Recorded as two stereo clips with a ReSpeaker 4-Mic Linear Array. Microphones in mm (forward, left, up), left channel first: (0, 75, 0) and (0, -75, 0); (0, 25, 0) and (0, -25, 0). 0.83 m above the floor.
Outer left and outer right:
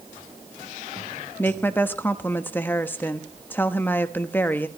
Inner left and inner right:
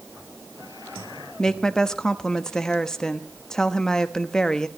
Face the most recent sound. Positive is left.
turn(degrees=15)  # may be behind; listen again after turning